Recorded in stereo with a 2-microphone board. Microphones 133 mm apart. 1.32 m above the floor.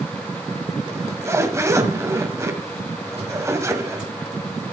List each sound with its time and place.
0.9 s a zipper: 20° right (ahead or behind), 1.6 m